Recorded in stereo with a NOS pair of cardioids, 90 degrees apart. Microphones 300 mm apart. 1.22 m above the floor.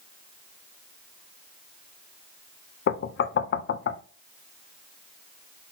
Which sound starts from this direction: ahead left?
Knocking, at 2.9 s.